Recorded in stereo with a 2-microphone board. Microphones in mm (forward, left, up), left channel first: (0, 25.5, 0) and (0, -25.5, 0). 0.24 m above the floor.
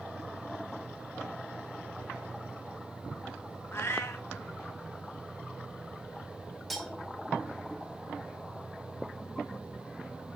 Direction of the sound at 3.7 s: 55° left (ahead or behind).